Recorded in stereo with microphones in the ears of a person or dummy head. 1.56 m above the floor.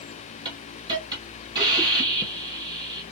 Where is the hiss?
25° right (ahead or behind), 1.8 m.